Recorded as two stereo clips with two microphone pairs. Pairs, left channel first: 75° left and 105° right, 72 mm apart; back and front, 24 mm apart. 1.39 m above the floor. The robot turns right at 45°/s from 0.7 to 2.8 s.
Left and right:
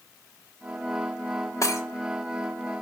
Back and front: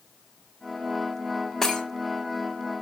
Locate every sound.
1.6 s breaking glass: 110° left, 1.4 m; by 1.8 s 120° left, 1.4 m